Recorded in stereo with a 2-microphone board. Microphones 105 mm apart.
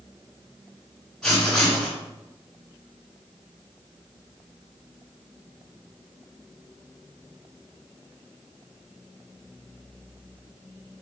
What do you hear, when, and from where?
1.2 s writing: 5° left (ahead or behind), 3 m